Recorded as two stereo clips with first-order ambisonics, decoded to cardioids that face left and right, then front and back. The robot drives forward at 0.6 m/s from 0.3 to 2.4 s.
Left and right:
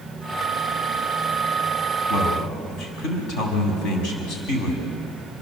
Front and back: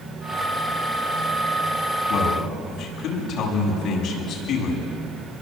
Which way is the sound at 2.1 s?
50° left.